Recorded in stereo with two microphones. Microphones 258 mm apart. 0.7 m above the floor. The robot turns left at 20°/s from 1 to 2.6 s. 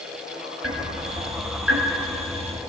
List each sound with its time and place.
0.6 s ticking: 60° right (ahead or behind), 1.9 m; by 2.6 s 90° right, 1.9 m